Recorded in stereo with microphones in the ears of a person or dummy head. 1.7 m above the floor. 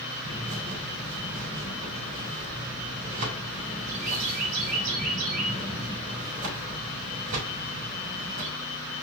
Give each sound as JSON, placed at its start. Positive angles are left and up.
{"t": 0.2, "sound": "a bird", "side_deg": -45, "distance_m": 3.0}